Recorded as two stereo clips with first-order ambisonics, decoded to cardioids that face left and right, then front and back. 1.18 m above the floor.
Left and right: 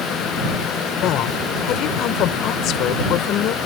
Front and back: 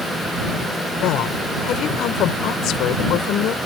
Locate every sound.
1.0 s a woman speaking: 45° left